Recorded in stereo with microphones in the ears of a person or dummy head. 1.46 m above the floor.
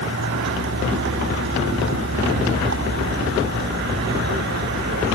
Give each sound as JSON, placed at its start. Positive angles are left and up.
{"t": 0.0, "sound": "a vehicle", "side_deg": -60}